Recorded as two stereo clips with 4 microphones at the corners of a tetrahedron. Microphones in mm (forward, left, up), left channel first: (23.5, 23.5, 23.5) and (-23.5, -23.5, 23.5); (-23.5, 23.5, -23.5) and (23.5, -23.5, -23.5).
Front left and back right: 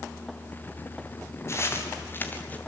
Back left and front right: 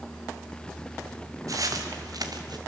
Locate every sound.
1.5 s footsteps: 5° right, 3.5 m; by 2.6 s 20° right, 2.5 m